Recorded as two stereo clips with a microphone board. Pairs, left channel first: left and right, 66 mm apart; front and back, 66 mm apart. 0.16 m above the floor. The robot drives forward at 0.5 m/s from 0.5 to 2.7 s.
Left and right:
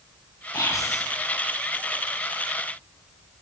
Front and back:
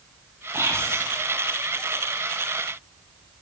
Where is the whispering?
130° left, 7 m.